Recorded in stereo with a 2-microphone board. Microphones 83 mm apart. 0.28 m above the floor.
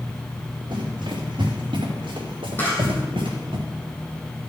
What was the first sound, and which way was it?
Running footsteps, 70° right (ahead or behind).